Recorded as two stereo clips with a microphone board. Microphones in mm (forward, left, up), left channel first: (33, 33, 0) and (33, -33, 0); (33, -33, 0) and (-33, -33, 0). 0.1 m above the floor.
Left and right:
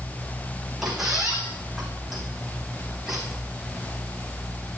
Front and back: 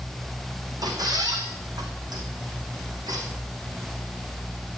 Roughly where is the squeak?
Behind.